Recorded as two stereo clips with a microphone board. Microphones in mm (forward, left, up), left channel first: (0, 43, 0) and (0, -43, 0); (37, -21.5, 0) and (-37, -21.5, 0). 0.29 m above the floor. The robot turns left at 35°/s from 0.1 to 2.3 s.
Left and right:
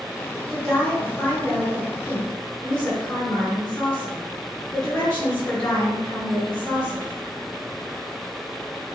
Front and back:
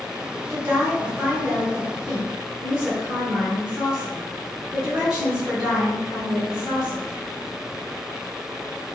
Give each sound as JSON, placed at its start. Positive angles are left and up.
{"t": 0.5, "sound": "a woman speaking", "azimuth_deg": 170, "distance_m": 0.9}